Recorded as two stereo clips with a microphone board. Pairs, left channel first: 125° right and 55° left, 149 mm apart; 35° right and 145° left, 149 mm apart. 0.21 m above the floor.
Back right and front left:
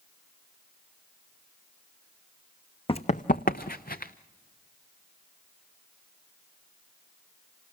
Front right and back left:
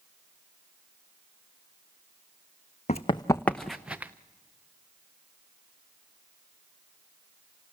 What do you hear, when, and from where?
2.9 s running footsteps: 75° right, 0.8 m; by 4.1 s 135° right, 1.4 m